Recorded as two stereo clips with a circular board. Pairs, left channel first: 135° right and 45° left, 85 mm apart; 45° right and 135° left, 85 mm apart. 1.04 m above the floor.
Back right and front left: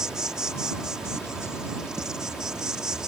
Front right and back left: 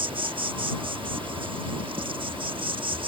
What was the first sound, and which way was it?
An insect, 125° left.